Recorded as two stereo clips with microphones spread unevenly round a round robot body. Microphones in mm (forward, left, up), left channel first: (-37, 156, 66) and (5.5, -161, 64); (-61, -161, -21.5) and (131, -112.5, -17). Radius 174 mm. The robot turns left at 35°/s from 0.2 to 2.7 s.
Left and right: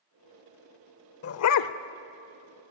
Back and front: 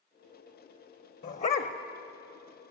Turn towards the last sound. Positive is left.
turn(degrees=90)